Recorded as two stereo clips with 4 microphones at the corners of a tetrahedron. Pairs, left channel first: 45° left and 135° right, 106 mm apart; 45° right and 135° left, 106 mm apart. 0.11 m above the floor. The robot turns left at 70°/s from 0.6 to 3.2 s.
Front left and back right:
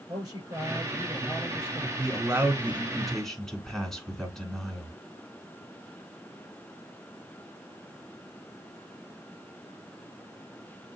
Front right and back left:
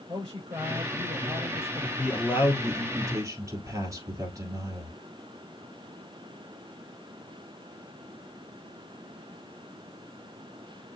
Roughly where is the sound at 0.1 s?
Behind.